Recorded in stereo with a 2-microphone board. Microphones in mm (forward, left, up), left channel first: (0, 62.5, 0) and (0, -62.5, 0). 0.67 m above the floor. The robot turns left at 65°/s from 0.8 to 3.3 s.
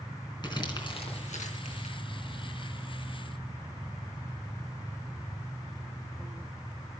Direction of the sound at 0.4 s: 35° left (ahead or behind).